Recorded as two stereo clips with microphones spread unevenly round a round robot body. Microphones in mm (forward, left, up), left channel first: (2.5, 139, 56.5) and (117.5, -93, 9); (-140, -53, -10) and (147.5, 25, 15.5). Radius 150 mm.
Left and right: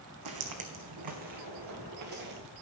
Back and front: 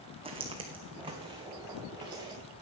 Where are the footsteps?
55° right, 1.5 m; by 2.4 s 60° right, 3 m.